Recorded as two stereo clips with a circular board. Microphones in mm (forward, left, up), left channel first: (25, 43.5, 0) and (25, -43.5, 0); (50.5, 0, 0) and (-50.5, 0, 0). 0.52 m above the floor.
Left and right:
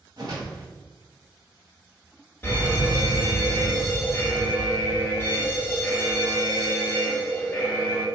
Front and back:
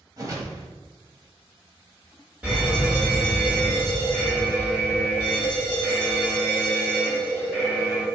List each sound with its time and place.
0.2 s a whoosh: 125° right, 1.1 m
2.4 s a fire alarm: 125° left, 1.9 m